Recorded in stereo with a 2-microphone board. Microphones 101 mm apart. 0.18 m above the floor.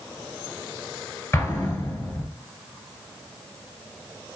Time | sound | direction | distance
1.3 | an explosion | 25° left (ahead or behind) | 1.0 m